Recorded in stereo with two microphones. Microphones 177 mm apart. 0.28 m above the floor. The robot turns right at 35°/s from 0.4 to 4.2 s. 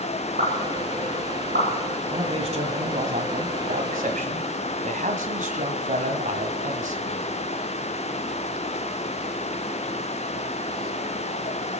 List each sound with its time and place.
0.4 s a pop: 55° right (ahead or behind), 6 m; by 1.7 s 75° right (ahead or behind), 6 m
2.1 s a man speaking: 145° right, 2 m; by 7.3 s 70° right, 2 m